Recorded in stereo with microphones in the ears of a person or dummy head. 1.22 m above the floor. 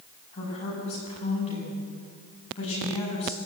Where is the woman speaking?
30° left (ahead or behind), 8 m.